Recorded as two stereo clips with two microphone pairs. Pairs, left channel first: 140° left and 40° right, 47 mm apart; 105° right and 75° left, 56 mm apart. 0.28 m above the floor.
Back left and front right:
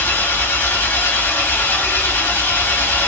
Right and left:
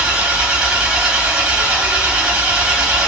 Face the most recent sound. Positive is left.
turn(degrees=140)